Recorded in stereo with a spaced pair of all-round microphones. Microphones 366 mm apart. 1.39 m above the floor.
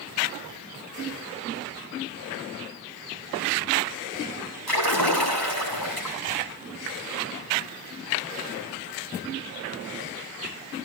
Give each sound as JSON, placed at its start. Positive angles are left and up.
{"t": 4.7, "sound": "a splash", "side_deg": 80, "distance_m": 6.5}